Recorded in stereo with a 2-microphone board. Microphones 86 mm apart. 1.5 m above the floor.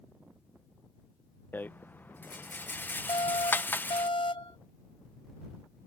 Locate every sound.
1.5 s a rattle: 25° left (ahead or behind)
3.1 s an alarm: 80° left